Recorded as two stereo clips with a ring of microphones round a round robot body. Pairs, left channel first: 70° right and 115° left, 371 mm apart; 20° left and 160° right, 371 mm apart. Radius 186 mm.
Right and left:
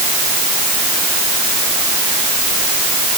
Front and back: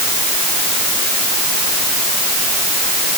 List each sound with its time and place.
Only background noise.